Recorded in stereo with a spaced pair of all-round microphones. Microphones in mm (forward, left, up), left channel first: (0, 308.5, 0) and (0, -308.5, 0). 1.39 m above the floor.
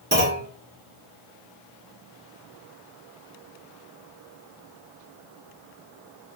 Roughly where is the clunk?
Centre.